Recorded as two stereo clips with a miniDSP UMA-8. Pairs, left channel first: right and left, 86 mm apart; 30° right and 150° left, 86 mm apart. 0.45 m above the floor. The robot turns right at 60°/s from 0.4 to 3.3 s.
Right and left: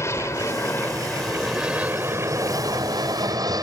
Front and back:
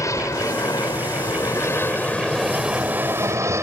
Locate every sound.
0.0 s an aircraft: 55° right; by 3.6 s 105° left